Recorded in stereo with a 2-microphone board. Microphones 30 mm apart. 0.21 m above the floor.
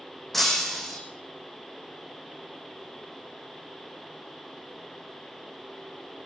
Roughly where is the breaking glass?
Centre.